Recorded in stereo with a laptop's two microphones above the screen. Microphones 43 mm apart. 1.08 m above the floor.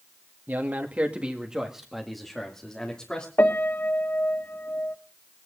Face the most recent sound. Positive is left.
turn(degrees=65)  # may be behind; listen again after turning